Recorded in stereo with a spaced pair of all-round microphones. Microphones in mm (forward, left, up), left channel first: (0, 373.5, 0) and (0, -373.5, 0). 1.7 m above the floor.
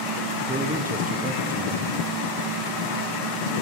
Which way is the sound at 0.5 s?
10° right (ahead or behind).